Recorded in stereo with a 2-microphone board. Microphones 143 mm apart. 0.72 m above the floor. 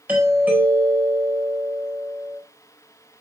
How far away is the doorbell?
About 4 m.